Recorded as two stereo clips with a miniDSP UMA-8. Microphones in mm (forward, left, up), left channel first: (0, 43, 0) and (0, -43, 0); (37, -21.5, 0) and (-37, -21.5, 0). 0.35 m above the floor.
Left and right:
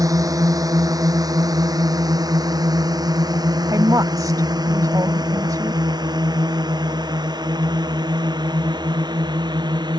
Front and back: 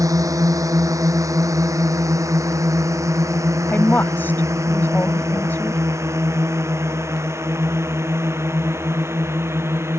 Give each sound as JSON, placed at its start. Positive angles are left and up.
{"t": 0.0, "sound": "a drone", "azimuth_deg": -140}
{"t": 3.7, "sound": "a woman speaking", "azimuth_deg": -60}